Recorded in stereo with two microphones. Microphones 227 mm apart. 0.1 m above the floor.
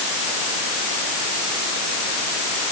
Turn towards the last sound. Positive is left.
No sound to turn to.